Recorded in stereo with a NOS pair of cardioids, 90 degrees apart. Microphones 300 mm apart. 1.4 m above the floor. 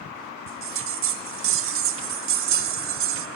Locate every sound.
0.5 s a bell: 45° right, 0.5 m